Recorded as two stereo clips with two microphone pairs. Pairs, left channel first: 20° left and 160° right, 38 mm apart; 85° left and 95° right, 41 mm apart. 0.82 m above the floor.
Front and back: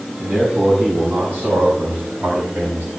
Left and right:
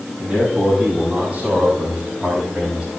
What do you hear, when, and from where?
0.2 s a man speaking: 160° right, 7 m; by 2.9 s 165° right, 4.5 m